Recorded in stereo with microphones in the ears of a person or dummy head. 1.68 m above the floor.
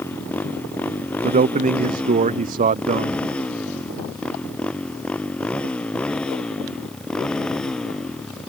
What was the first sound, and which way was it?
A motorcycle, 10° left (ahead or behind).